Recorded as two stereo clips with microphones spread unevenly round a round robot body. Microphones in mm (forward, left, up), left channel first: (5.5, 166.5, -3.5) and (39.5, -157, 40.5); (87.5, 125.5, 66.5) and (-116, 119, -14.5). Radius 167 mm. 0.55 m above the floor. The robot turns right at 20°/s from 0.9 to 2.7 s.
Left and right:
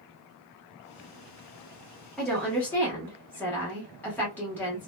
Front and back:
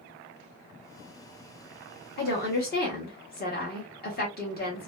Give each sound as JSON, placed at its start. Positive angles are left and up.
{"t": 2.2, "sound": "a woman speaking", "azimuth_deg": 25, "distance_m": 1.0}